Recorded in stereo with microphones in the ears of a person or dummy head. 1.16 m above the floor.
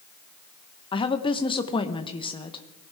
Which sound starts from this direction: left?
A woman speaking, at 0.9 s.